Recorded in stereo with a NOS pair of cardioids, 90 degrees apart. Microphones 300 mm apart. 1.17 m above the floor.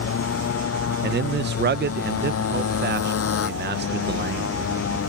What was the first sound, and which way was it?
A motorcycle, 50° left.